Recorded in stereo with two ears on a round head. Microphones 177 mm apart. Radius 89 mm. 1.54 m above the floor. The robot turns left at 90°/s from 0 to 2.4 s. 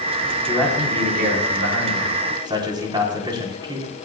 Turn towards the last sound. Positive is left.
turn(degrees=-155)